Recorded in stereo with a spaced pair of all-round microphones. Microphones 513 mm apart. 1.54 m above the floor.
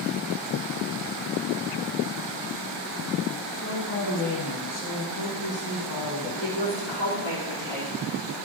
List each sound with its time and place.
3.5 s a woman speaking: 40° left (ahead or behind), 1.0 m
6.4 s a woman speaking: 60° left (ahead or behind), 3.5 m